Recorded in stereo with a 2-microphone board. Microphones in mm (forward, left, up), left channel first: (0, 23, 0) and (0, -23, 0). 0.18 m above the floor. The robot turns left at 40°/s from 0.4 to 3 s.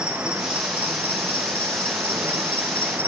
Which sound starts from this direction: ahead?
An insect, at 0.0 s.